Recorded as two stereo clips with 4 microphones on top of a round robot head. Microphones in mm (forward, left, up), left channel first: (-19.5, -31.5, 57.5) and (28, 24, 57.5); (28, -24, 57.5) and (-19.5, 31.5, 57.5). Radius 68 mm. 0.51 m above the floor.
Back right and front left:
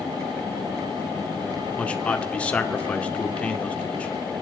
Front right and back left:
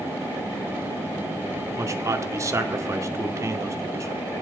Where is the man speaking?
160° left, 1.9 m.